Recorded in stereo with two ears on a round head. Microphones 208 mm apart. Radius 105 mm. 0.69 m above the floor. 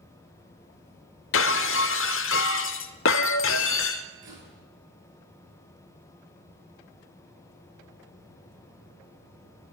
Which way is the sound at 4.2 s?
55° right (ahead or behind).